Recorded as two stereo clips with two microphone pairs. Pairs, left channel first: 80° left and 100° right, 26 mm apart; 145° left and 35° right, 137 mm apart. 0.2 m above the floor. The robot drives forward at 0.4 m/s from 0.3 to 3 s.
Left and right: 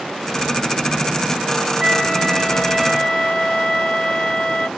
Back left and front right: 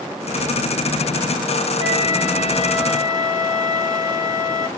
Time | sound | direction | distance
1.8 | a flute | 170° left | 3 m